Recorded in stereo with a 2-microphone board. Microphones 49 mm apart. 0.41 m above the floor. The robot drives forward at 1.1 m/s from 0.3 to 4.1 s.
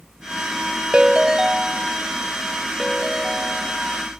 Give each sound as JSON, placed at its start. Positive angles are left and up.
{"t": 0.9, "sound": "a ringtone", "side_deg": -20}